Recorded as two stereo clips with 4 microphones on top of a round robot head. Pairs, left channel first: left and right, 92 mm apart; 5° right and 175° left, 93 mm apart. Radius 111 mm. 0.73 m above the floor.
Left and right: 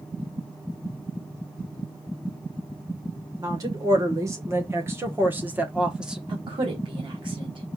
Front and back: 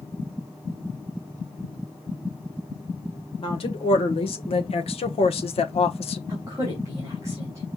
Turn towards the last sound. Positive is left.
turn(degrees=-120)